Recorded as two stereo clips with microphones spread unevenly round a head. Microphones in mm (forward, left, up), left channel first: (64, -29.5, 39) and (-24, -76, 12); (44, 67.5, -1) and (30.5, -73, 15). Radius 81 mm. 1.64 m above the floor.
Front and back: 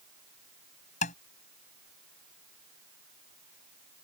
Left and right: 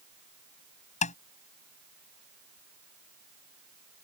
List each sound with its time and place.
1.0 s tapping: 45° left